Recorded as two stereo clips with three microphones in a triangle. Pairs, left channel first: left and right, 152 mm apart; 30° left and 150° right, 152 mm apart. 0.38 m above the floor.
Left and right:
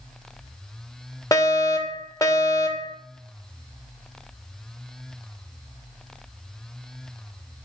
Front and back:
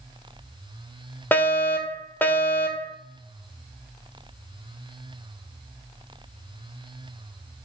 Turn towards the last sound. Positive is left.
turn(degrees=85)